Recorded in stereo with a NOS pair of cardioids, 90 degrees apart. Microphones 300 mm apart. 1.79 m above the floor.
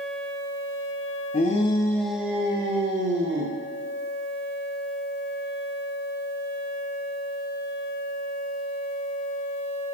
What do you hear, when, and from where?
1.3 s a shout: 30° left, 1.5 m; by 3.6 s 35° right, 2.5 m